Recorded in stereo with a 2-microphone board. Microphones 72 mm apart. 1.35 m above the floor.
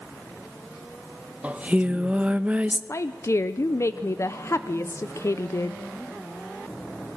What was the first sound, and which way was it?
Singing, 20° right (ahead or behind).